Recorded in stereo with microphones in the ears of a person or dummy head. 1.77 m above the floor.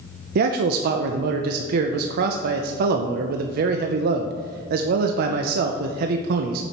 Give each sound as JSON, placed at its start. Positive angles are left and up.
{"t": 0.3, "sound": "a man speaking", "side_deg": -60, "distance_m": 0.6}